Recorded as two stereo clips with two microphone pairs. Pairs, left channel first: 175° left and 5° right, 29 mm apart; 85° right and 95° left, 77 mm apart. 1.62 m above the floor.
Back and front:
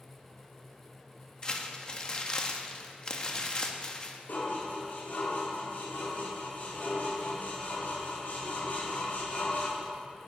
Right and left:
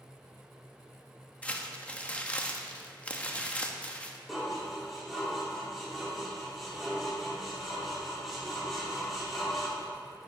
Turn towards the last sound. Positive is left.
turn(degrees=-175)